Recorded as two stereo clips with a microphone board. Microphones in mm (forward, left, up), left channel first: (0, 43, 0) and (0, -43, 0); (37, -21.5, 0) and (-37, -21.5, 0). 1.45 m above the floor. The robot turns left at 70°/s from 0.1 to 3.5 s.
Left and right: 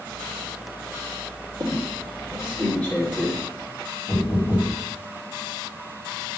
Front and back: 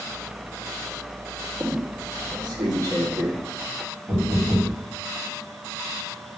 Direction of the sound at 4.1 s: 120° left.